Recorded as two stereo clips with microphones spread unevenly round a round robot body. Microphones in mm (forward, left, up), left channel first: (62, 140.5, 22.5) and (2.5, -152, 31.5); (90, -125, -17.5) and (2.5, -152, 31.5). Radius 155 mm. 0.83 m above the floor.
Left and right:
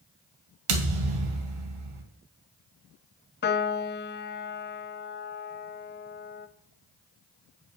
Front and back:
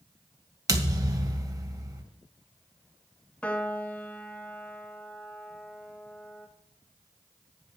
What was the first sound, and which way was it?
A thud, 115° right.